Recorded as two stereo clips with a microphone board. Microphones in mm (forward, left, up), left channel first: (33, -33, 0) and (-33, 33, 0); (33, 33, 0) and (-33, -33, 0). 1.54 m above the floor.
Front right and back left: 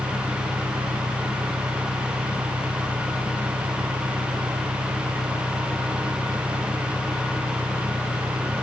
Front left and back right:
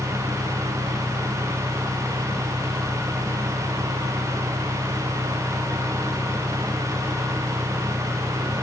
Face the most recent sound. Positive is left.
turn(degrees=135)